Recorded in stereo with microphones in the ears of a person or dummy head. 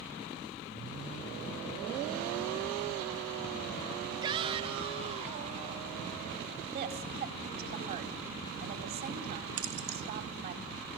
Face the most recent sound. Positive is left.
turn(degrees=-80)